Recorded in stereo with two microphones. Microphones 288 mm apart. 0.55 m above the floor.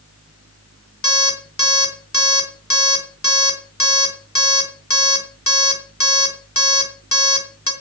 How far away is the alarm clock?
About 3.5 m.